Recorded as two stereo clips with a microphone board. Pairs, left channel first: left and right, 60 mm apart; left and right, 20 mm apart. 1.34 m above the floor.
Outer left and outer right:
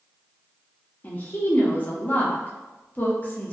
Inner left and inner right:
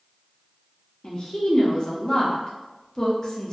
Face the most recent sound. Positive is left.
turn(degrees=30)  # may be behind; listen again after turning